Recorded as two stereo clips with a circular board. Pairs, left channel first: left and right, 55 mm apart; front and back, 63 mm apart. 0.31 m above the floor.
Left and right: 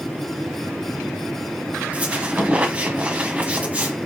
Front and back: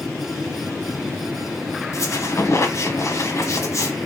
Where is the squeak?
30° right, 0.9 m.